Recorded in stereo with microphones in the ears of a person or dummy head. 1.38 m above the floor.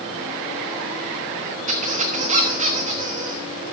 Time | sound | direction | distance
1.7 | a squeak | 40° right (ahead or behind) | 1.1 m